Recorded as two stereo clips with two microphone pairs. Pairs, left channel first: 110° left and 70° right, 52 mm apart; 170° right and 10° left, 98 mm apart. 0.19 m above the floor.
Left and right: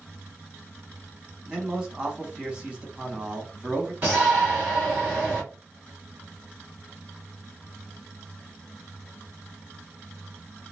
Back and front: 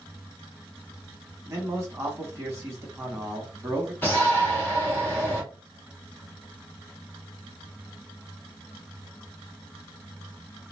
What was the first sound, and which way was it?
A man speaking, 5° right.